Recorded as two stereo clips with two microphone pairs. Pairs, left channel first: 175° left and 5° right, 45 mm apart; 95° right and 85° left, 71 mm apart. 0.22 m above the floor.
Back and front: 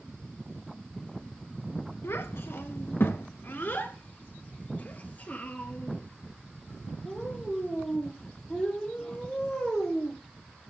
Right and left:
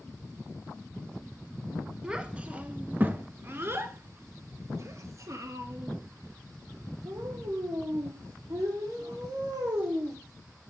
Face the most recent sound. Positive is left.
turn(degrees=100)